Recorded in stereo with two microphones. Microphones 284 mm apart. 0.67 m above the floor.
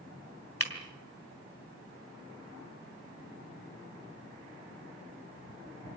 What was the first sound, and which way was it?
Breaking glass, 50° left (ahead or behind).